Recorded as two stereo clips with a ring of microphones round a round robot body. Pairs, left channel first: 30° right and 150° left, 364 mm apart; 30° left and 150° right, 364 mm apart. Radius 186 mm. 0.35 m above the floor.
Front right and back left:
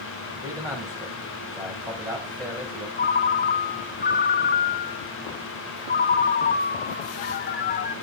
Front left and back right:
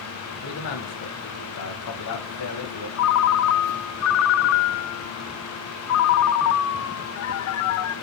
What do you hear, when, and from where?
0.4 s a man speaking: 70° left, 2 m
3.0 s a ringtone: 25° left, 0.5 m